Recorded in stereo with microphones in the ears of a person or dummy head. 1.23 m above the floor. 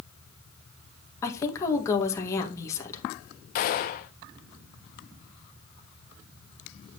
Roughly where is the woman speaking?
Centre.